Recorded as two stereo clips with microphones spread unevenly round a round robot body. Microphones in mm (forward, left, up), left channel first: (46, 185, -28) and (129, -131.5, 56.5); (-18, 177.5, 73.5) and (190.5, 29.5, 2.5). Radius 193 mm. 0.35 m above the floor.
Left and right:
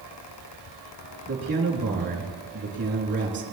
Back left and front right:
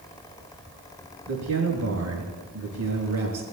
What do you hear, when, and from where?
1.3 s a man speaking: 15° right, 4.5 m